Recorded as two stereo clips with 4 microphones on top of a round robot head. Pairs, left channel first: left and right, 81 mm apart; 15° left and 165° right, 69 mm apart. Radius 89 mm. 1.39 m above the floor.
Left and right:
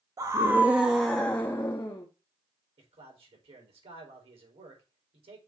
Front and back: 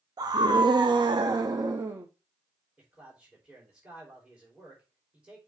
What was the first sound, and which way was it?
A scream, 135° right.